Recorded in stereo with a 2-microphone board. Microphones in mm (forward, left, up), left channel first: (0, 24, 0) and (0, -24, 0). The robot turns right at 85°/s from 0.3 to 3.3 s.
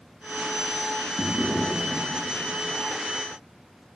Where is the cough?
No cough in this recording.